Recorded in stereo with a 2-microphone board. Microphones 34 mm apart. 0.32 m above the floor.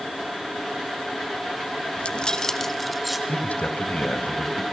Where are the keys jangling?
40° left (ahead or behind), 1.2 m; by 3.2 s 5° right (ahead or behind), 2.5 m.